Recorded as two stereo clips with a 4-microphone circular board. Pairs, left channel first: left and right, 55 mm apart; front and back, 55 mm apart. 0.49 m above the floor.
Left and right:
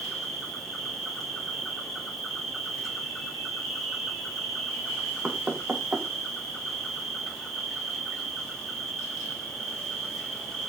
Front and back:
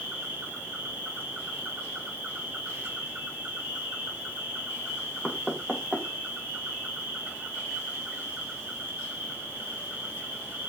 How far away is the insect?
About 1.5 m.